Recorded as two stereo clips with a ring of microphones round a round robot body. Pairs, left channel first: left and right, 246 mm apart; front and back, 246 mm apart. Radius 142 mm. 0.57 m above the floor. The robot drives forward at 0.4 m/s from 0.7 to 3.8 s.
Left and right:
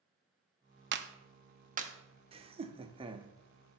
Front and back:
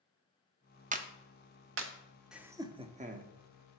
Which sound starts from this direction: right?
Laughter, at 2.3 s.